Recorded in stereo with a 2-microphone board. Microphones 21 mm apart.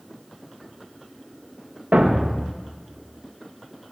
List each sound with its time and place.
1.9 s a thud: 70° right (ahead or behind), 5.5 m